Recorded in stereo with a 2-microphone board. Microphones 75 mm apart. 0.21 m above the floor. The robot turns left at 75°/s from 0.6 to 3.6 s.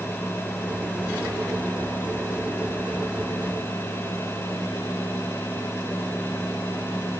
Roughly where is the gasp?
No gasp in this recording.